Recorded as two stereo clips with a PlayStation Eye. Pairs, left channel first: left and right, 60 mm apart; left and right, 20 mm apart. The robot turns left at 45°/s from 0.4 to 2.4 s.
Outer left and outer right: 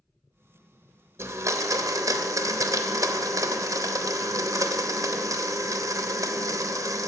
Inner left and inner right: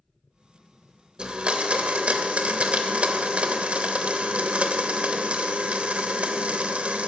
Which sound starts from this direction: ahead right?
A blender, at 1.2 s.